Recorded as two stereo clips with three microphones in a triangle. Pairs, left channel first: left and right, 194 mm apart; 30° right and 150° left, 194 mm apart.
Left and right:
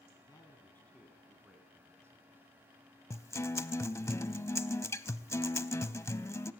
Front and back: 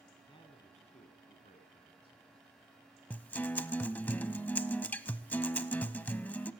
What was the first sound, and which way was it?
A man speaking, 25° left.